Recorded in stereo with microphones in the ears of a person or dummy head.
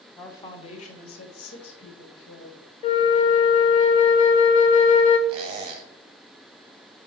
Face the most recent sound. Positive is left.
turn(degrees=-25)  # may be behind; listen again after turning